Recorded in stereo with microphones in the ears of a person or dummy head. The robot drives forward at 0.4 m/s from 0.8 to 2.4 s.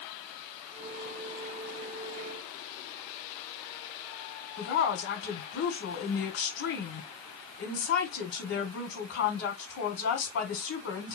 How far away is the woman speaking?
About 1.0 m.